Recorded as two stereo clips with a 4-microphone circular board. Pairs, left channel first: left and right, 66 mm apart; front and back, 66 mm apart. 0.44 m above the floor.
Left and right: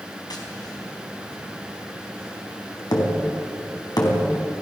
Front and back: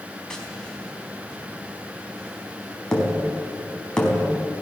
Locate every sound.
0.3 s tapping: 80° left, 4 m